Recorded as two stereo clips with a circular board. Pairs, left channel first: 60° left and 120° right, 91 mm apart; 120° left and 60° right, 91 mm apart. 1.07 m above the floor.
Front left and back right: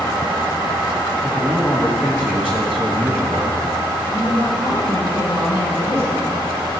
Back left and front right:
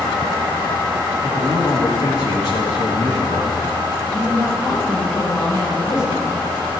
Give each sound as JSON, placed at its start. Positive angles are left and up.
{"t": 1.2, "sound": "a man speaking", "azimuth_deg": 165, "distance_m": 2.5}
{"t": 4.1, "sound": "a woman speaking", "azimuth_deg": 180, "distance_m": 4.5}